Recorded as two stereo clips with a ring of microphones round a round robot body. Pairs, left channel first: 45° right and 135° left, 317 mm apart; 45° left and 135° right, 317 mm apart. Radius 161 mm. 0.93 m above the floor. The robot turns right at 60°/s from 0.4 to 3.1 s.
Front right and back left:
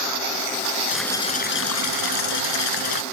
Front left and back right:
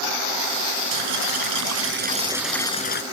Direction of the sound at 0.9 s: 140° right.